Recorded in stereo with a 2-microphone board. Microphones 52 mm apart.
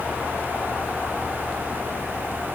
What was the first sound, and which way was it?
Only background noise.